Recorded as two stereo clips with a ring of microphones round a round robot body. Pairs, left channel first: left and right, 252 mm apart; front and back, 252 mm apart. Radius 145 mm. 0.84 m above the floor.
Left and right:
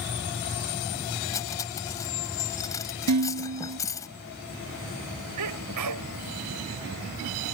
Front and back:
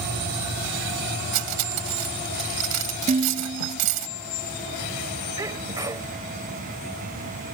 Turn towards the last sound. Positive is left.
turn(degrees=-100)